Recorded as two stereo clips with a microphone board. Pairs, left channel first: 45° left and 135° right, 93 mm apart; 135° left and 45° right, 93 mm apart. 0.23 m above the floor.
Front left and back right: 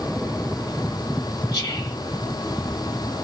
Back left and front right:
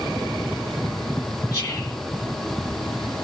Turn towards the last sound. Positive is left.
turn(degrees=85)